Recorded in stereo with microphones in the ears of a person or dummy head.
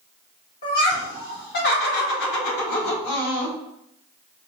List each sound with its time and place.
0.6 s laughter: 35° left (ahead or behind), 1.8 m; by 3.6 s 60° left (ahead or behind), 1.3 m